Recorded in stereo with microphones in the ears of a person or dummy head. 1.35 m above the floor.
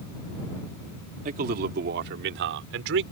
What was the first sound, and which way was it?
A man speaking, 45° right (ahead or behind).